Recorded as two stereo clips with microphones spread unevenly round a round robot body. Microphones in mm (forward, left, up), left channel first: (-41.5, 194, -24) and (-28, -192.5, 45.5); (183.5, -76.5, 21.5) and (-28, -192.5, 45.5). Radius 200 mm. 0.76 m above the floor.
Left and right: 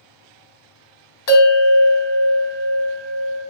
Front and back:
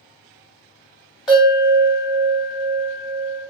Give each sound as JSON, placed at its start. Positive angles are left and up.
{"t": 1.3, "sound": "a bell", "azimuth_deg": 115, "distance_m": 1.0}